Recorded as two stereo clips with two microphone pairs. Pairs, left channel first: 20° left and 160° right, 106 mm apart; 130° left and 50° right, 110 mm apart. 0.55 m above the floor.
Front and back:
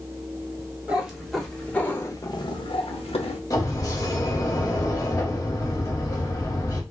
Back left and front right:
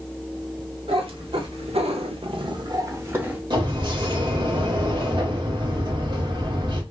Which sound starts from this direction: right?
A cat meowing, at 0.9 s.